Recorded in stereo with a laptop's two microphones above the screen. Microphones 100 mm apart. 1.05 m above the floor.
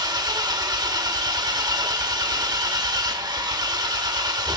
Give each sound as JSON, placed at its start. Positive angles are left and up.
{"t": 0.0, "sound": "an engine running", "side_deg": -45, "distance_m": 1.0}